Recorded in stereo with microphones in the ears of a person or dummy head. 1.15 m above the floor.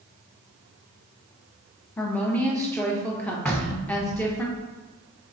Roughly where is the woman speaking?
Centre.